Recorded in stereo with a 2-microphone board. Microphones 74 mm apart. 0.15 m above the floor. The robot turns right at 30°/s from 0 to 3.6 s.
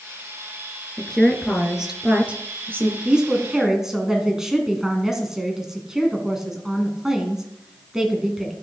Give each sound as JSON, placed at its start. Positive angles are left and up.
{"t": 1.0, "sound": "a woman speaking", "azimuth_deg": 165, "distance_m": 2.0}
{"t": 3.0, "sound": "a woman speaking", "side_deg": -15, "distance_m": 1.7}